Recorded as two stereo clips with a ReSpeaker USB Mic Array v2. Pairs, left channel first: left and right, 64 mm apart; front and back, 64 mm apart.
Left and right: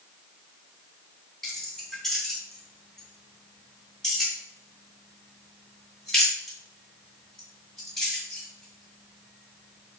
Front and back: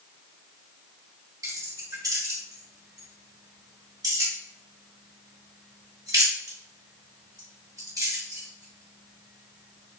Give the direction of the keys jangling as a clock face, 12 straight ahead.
6 o'clock.